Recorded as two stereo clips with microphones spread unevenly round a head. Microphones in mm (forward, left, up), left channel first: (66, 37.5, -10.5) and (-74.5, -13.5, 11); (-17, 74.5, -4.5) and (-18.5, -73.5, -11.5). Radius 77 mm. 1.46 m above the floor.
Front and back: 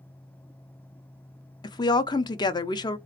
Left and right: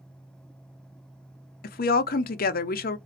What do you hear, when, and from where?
1.6 s a woman speaking: 85° left, 0.5 m